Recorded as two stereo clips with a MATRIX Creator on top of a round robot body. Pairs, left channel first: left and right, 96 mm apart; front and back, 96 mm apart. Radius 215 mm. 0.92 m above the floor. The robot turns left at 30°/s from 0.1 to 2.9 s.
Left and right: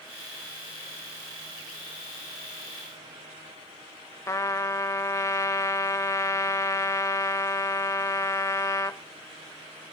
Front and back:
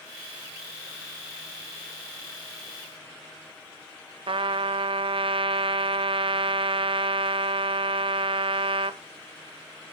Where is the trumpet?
150° left, 0.7 m.